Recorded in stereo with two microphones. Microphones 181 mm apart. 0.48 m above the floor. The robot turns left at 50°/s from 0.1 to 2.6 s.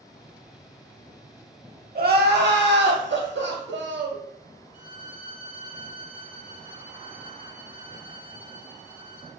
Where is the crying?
55° right, 0.6 m; by 4.2 s 90° right, 0.6 m.